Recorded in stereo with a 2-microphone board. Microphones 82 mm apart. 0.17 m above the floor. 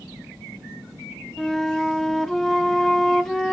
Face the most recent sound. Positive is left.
turn(degrees=5)  # may be behind; listen again after turning